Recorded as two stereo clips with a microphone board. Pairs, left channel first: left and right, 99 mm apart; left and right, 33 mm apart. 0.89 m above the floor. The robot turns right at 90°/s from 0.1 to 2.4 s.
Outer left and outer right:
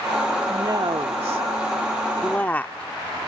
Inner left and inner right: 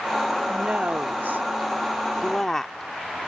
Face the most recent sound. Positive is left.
turn(degrees=15)